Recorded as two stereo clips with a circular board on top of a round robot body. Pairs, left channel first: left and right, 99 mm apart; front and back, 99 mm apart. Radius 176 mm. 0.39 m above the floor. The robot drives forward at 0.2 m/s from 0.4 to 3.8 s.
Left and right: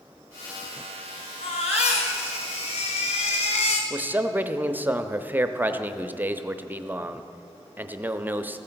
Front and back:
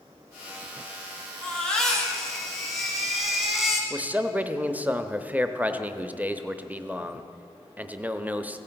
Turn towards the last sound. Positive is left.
turn(degrees=-130)